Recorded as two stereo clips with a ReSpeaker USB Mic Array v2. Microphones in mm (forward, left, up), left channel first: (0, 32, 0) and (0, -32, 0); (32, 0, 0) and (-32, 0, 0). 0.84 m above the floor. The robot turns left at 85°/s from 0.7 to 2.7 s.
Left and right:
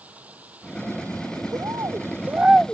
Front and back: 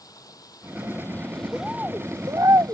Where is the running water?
25° right; by 2.7 s 165° left.